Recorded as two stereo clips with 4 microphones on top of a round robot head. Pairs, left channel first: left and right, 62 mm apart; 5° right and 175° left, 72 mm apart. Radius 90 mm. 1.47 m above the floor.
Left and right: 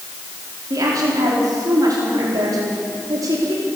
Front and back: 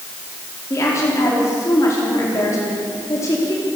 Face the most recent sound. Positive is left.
turn(degrees=-55)